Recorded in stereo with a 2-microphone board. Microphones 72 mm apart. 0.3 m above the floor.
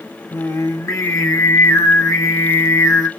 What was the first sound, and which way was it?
Singing, 45° left (ahead or behind).